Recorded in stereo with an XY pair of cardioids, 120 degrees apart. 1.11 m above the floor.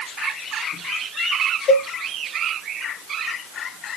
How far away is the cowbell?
About 1.1 m.